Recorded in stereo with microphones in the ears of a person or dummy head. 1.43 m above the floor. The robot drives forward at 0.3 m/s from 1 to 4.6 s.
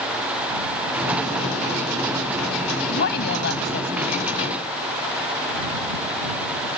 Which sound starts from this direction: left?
A woman speaking, at 2.9 s.